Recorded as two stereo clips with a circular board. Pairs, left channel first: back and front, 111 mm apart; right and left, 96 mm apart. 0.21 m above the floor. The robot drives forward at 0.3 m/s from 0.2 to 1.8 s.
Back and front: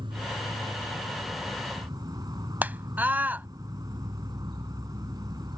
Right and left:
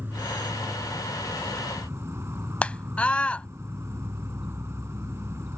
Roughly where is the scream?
Ahead right.